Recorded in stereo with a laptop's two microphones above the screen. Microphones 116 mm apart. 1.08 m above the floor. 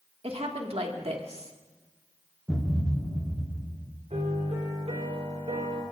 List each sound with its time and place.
0.2 s a woman speaking: 65° right (ahead or behind), 2 m
2.5 s a thud: 10° right (ahead or behind), 3 m
4.1 s a piano: 80° right, 4.5 m